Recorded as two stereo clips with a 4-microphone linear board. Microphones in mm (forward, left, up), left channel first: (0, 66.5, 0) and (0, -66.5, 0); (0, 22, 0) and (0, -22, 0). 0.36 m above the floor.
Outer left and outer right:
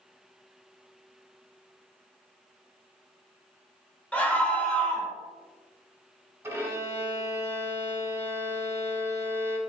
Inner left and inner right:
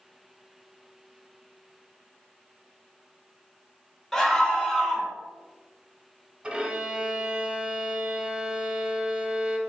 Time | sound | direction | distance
4.1 | a scream | 10° left (ahead or behind) | 0.9 m
6.4 | a violin | 20° right (ahead or behind) | 0.8 m